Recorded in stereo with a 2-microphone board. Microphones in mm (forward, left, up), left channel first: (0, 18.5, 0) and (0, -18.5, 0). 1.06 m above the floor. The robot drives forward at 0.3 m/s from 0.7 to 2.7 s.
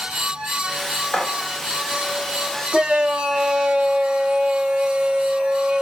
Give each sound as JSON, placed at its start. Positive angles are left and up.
{"t": 1.1, "sound": "a gunshot", "side_deg": 20, "distance_m": 0.9}
{"t": 2.7, "sound": "a shout", "side_deg": -15, "distance_m": 1.5}